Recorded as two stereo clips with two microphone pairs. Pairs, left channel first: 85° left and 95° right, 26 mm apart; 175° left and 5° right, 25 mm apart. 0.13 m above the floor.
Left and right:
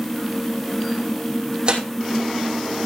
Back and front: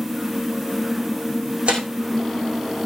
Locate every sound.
1.7 s tearing paper: 45° right, 2.5 m